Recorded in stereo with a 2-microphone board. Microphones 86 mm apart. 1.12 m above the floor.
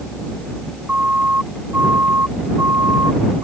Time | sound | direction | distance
0.9 | a siren | 20° right (ahead or behind) | ?